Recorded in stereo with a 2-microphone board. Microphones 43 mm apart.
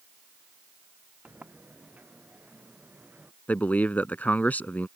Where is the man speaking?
35° left (ahead or behind).